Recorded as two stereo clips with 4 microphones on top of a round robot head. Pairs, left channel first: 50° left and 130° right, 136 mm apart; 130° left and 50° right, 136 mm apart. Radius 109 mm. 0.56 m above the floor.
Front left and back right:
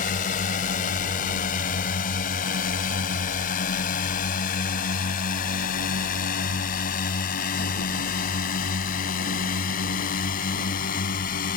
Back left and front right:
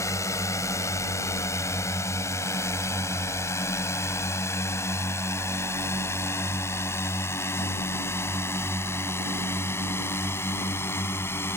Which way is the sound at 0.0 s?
65° left.